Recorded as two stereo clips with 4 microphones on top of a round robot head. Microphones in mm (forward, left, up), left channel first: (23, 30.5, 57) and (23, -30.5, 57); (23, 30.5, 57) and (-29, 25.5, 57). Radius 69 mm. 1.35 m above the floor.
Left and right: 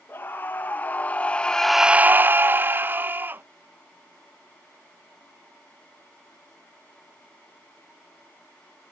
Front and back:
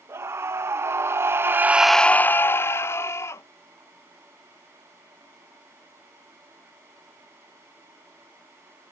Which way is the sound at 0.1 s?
155° left.